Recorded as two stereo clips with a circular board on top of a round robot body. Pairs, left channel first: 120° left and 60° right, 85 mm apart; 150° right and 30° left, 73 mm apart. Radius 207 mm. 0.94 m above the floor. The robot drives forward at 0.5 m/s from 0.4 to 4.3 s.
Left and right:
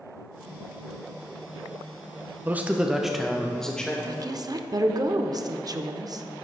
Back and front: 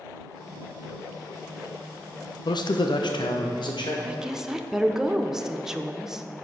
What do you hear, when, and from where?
2.5 s a man speaking: 130° right, 0.6 m; by 4.0 s 160° right, 1.2 m
4.0 s a woman speaking: 40° right, 0.8 m; by 6.2 s 50° right, 0.7 m